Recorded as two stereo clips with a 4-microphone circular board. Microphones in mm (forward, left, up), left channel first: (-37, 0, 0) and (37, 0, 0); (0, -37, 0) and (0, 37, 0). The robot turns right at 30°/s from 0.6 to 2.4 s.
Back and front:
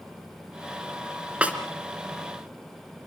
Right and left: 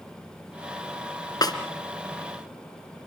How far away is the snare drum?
About 2 m.